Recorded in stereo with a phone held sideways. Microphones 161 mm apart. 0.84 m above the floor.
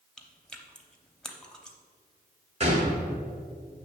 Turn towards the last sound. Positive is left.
turn(degrees=-40)  # may be behind; listen again after turning